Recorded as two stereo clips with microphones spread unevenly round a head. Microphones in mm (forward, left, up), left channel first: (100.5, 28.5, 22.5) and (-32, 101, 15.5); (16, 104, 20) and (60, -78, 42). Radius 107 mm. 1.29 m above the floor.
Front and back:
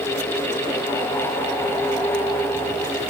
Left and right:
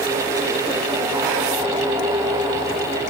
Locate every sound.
Only background noise.